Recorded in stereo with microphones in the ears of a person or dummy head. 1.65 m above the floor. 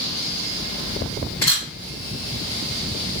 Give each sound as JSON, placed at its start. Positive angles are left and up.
{"t": 1.4, "sound": "a camera shutter", "side_deg": 20, "distance_m": 2.0}